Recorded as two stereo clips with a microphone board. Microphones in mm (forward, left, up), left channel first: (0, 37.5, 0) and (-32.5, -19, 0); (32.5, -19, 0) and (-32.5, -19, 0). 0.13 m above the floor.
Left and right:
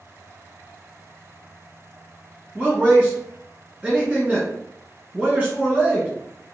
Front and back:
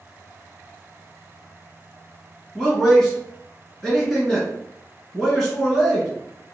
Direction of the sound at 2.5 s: 80° right.